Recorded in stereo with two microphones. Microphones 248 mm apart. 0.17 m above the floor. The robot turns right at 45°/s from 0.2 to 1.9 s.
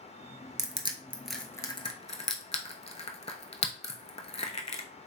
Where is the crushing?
30° right (ahead or behind), 0.6 m; by 4.8 s 25° left (ahead or behind), 0.6 m.